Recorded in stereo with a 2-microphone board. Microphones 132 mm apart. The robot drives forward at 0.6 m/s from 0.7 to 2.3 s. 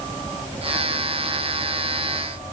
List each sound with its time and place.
Only background noise.